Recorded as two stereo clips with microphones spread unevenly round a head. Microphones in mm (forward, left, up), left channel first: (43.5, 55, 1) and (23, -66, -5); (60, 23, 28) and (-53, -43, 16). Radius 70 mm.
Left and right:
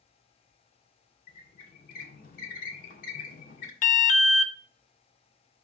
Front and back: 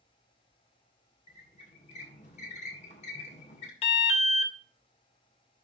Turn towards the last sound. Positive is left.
turn(degrees=75)